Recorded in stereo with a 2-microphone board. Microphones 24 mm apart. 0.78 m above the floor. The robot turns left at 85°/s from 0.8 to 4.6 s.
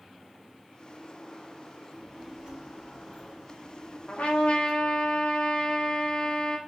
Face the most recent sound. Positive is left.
turn(degrees=55)